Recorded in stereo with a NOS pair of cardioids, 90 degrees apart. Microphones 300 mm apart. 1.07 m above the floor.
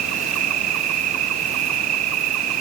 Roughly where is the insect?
Ahead right.